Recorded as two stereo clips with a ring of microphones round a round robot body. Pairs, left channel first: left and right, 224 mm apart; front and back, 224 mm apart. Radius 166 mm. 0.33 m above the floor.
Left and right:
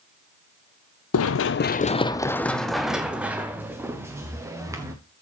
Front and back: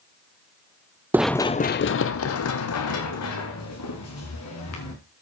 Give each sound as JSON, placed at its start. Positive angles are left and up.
{"t": 1.1, "sound": "running footsteps", "azimuth_deg": 100, "distance_m": 0.6}